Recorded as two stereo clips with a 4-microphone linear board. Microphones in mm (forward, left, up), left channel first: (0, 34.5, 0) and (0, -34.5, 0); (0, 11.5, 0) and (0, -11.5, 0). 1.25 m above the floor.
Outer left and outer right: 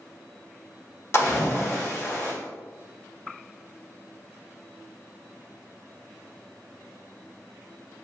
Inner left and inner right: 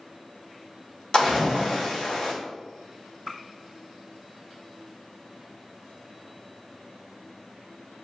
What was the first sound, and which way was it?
A splash, 40° left (ahead or behind).